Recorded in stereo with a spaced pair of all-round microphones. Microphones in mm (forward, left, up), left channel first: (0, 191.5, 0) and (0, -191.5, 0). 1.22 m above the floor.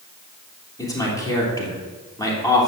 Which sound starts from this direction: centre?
A man speaking, at 0.8 s.